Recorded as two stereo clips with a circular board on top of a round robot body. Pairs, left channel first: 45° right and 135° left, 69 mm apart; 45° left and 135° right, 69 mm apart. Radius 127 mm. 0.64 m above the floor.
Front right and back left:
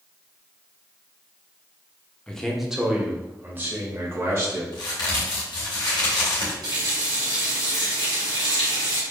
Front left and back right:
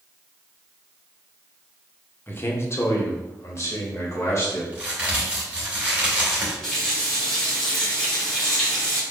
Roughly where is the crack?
Ahead right.